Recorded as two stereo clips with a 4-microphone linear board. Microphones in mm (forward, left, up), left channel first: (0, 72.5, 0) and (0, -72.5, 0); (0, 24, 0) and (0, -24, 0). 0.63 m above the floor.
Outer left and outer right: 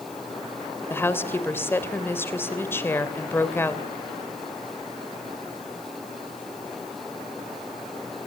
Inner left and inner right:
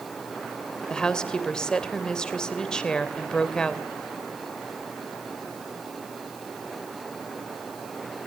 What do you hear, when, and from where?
0.9 s a woman speaking: 15° left (ahead or behind), 3 m